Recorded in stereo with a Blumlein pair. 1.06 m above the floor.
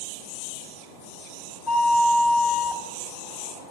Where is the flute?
20° left, 1.6 m.